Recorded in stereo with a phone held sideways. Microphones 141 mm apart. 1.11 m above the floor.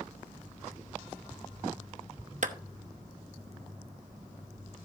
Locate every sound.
2.4 s a clap: 65° right (ahead or behind), 0.8 m